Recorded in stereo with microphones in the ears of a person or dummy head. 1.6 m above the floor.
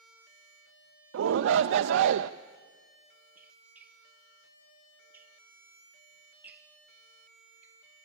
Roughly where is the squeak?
Centre.